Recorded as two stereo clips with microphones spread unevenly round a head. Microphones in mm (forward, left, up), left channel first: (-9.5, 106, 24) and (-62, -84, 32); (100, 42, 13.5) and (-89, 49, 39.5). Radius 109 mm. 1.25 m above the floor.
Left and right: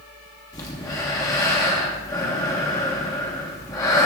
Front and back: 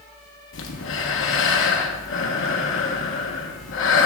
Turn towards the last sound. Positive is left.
turn(degrees=0)